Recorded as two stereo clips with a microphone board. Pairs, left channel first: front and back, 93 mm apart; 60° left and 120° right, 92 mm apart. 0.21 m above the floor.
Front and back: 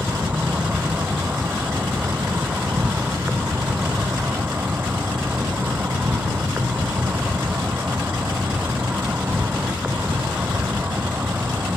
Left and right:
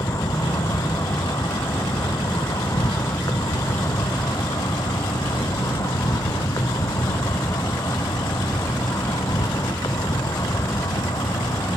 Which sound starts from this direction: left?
An insect, at 0.0 s.